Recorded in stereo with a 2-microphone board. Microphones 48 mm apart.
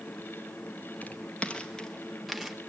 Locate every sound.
1.0 s footsteps: 30° left (ahead or behind), 1.9 m; by 2.6 s 10° right (ahead or behind), 1.5 m